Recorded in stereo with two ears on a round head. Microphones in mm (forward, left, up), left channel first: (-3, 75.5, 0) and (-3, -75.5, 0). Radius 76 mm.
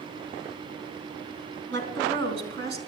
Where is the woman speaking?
80° right, 3.5 m; by 2.8 s 70° right (ahead or behind), 4 m.